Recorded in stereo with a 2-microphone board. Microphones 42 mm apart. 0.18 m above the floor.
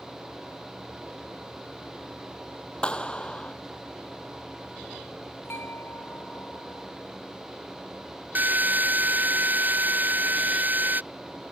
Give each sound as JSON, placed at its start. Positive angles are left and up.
{"t": 2.8, "sound": "a clap", "side_deg": 25}
{"t": 5.5, "sound": "a bell", "side_deg": 70}
{"t": 8.3, "sound": "a drill", "side_deg": -45}